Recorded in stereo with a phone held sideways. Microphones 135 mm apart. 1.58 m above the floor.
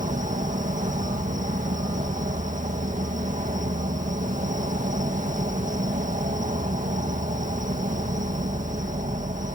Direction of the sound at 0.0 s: 70° right (ahead or behind).